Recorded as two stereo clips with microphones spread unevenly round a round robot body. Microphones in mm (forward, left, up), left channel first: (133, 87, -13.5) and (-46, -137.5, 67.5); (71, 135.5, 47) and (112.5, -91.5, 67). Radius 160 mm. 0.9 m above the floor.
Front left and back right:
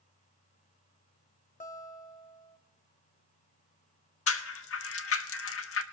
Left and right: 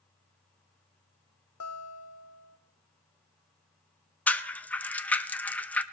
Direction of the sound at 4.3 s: 20° left.